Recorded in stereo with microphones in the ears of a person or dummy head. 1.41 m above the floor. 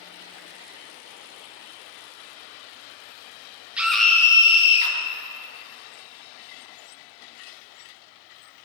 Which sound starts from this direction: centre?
A scream, at 3.8 s.